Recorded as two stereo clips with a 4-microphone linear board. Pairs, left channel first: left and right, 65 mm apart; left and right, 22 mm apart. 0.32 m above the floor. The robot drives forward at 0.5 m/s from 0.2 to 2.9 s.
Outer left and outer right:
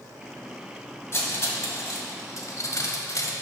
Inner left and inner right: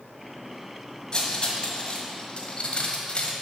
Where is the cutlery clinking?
40° left (ahead or behind), 1.4 m; by 3.3 s 55° left (ahead or behind), 1.1 m.